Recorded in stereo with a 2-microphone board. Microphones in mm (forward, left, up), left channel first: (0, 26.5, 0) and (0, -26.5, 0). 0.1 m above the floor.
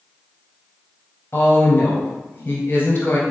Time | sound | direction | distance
1.3 | a woman speaking | 40° left (ahead or behind) | 1.7 m